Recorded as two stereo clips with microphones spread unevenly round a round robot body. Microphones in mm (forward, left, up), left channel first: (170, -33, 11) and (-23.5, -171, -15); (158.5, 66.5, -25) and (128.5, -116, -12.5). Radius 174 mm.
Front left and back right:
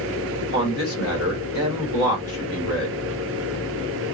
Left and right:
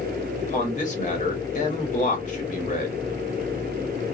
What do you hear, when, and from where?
0.4 s a man speaking: 55° left, 1.6 m